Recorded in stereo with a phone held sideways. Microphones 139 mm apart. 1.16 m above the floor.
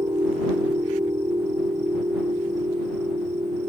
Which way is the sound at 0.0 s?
30° right (ahead or behind).